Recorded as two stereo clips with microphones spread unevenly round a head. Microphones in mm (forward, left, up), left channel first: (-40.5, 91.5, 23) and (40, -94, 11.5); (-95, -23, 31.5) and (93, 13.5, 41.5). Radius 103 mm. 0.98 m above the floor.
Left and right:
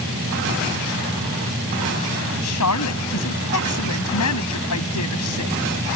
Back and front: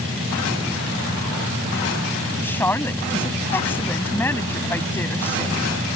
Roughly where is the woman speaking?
Left.